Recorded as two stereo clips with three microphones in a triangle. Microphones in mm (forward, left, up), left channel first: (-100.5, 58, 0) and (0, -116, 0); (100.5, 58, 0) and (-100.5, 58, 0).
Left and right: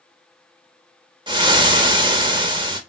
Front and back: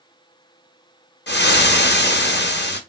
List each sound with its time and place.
1.3 s frying: straight ahead, 0.5 m